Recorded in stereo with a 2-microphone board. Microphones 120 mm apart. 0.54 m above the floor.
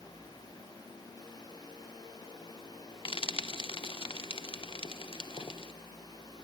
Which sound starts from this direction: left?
Frying, at 3.0 s.